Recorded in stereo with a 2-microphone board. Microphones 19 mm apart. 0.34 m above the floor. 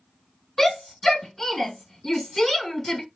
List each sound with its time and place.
0.6 s a shout: 15° left (ahead or behind), 1.9 m